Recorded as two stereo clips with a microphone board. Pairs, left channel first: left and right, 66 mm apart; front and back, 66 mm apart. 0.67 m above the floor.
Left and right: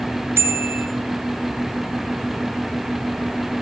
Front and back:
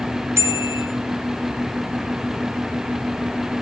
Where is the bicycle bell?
140° right, 3 m.